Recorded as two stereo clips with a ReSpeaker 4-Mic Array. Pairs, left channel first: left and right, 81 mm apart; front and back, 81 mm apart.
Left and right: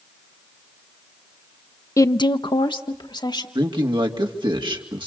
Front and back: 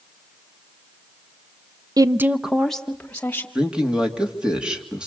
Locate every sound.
2.0 s a woman speaking: 140° left, 0.6 m; by 3.5 s 70° left, 2 m
3.5 s a man speaking: 100° right, 2.5 m